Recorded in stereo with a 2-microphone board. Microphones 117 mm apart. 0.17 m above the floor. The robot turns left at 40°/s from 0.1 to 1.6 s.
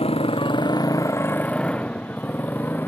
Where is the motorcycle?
60° left (ahead or behind); by 2.9 s 15° left (ahead or behind).